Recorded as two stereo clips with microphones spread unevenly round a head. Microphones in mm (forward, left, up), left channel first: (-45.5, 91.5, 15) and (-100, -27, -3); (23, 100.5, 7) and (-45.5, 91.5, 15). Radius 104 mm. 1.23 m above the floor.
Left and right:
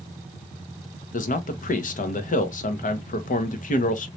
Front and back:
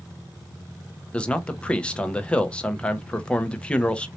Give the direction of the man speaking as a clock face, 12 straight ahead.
9 o'clock.